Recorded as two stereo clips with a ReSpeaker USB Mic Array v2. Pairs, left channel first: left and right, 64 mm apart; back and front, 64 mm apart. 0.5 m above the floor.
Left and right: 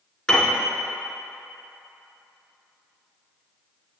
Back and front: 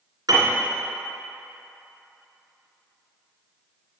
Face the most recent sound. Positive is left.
turn(degrees=15)